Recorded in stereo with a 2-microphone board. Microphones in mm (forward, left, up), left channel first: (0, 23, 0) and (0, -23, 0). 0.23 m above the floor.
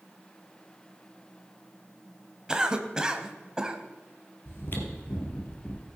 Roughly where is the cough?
Centre.